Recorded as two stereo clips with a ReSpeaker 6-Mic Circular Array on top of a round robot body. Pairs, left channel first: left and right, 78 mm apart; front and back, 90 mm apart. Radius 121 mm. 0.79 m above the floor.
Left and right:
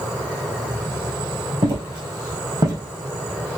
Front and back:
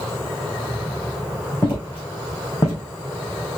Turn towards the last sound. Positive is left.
turn(degrees=-55)